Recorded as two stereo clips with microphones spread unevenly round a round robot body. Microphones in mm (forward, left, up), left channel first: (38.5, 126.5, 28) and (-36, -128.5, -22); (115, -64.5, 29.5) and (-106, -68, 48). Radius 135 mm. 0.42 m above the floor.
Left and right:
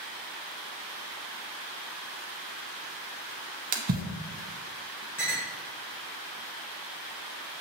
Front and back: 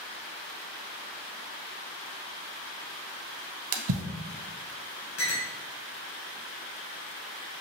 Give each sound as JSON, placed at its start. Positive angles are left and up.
{"t": 3.7, "sound": "a splash", "azimuth_deg": -170, "distance_m": 0.5}
{"t": 5.2, "sound": "a clink", "azimuth_deg": -10, "distance_m": 1.7}